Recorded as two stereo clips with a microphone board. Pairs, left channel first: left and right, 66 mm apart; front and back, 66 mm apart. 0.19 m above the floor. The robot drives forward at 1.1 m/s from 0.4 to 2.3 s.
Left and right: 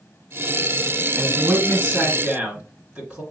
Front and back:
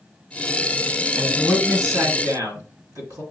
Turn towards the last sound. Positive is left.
turn(degrees=-160)